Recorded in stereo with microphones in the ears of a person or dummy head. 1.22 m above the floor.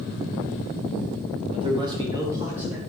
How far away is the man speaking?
About 1.4 m.